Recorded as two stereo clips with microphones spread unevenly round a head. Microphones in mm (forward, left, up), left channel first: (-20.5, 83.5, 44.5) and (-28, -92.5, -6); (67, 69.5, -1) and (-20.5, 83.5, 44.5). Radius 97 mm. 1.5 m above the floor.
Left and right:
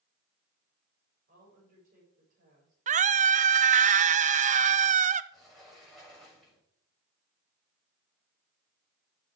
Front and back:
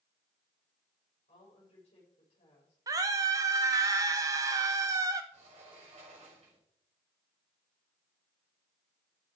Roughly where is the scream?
Behind right.